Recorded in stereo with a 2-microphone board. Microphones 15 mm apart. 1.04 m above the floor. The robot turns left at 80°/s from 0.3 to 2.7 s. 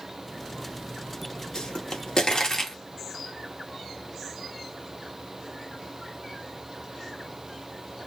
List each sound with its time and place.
1.6 s a pop: 65° left (ahead or behind), 1.0 m; by 2.8 s 25° left (ahead or behind), 1.0 m